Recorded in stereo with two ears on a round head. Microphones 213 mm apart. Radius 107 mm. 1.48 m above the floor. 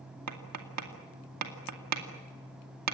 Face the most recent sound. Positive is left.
turn(degrees=-75)  # may be behind; listen again after turning